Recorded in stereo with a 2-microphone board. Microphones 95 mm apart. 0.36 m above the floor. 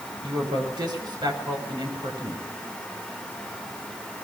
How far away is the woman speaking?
About 6 m.